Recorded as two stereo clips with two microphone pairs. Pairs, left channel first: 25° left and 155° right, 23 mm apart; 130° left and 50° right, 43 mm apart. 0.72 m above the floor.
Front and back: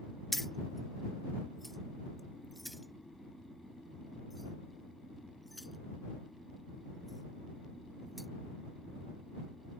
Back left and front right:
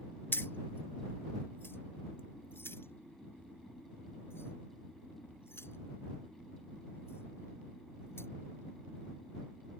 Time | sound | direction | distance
0.3 | keys jangling | 100° left | ?